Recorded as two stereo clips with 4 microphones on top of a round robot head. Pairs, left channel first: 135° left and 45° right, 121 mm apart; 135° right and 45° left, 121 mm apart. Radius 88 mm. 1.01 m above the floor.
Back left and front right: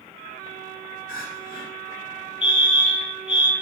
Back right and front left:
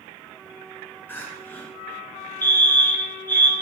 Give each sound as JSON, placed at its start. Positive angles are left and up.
{"t": 1.1, "sound": "crying", "azimuth_deg": 150, "distance_m": 2.5}
{"t": 2.4, "sound": "a fire alarm", "azimuth_deg": 160, "distance_m": 2.0}